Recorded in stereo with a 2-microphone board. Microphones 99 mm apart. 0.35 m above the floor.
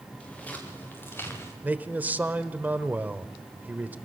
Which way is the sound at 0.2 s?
10° left (ahead or behind).